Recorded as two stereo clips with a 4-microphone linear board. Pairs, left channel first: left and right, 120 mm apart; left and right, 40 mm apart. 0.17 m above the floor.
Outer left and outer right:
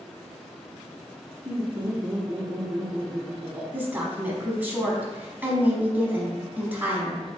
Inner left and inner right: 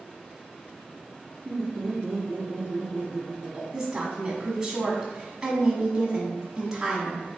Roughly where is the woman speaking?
Centre.